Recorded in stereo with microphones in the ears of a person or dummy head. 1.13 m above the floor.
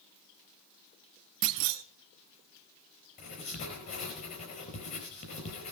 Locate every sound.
1.4 s a clunk: 65° right (ahead or behind), 0.9 m
3.2 s writing: 45° left (ahead or behind), 4.5 m